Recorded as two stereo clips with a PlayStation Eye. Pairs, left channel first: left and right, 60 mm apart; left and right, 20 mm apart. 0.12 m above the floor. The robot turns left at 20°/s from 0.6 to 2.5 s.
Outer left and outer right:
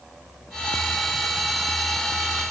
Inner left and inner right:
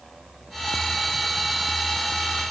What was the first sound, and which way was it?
Only background noise.